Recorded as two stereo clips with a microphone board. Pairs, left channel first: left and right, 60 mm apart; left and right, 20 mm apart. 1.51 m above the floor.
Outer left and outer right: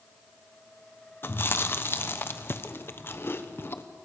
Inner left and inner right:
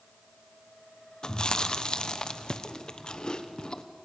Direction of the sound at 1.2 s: 40° left (ahead or behind).